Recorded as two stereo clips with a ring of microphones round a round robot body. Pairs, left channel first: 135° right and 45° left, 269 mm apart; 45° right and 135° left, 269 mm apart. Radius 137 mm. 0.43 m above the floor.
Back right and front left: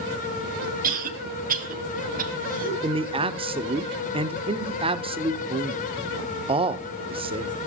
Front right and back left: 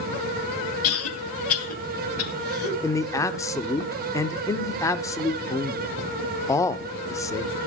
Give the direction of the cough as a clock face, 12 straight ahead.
12 o'clock.